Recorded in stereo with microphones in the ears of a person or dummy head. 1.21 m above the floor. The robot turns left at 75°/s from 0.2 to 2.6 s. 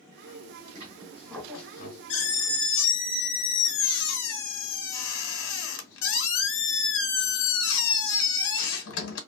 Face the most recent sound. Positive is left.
turn(degrees=80)